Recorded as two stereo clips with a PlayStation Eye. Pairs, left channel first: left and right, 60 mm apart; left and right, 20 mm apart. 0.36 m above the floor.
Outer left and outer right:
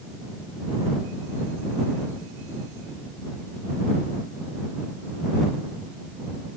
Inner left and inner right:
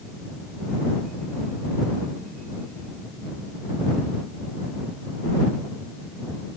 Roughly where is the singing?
I don't hear singing.